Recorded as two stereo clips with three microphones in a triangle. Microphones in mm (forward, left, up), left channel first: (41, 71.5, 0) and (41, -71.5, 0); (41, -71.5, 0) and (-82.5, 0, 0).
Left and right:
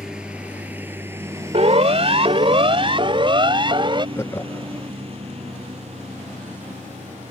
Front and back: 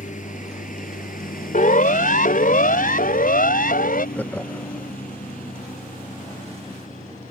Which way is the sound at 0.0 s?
5° right.